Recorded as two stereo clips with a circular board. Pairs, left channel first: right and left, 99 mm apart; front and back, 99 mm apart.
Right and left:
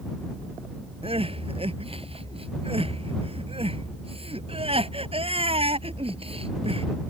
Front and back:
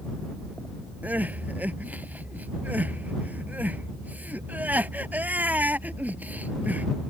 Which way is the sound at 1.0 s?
105° left.